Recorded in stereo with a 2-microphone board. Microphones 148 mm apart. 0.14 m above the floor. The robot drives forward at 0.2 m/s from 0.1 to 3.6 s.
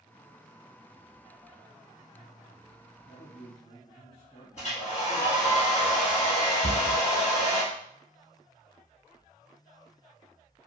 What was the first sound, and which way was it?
A man speaking, 30° left (ahead or behind).